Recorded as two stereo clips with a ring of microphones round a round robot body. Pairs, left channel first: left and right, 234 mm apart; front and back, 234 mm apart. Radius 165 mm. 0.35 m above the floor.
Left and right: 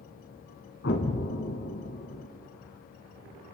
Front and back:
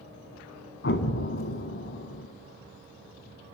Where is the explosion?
35° left, 2 m.